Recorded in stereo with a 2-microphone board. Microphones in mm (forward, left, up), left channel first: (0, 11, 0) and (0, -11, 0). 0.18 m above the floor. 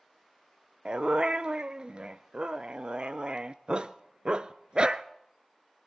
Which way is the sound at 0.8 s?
50° right (ahead or behind).